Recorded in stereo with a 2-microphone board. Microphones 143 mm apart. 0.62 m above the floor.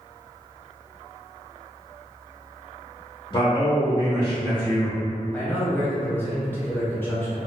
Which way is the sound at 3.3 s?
30° left (ahead or behind).